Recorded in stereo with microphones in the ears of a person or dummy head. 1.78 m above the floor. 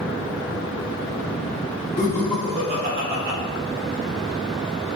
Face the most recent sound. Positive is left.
turn(degrees=-65)  # may be behind; listen again after turning